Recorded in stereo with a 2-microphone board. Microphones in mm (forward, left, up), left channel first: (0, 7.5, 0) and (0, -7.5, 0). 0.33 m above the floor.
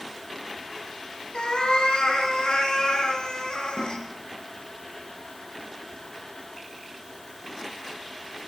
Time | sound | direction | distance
1.3 | a cat meowing | 80° left | 2 m
3.8 | a snare drum | 60° right (ahead or behind) | 5.5 m